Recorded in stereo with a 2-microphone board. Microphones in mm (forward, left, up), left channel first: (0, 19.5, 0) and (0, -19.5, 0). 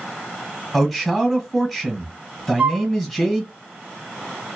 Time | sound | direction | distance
0.7 | a man speaking | centre (ahead or behind) | 1.3 m
2.6 | a flute | 40° right (ahead or behind) | 1.0 m